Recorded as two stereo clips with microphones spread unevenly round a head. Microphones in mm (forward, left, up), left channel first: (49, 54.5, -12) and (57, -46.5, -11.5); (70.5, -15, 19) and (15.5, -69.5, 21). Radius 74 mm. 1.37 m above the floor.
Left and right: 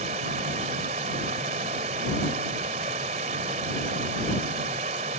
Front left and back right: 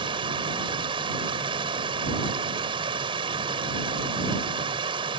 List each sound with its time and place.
0.0 s running water: 125° right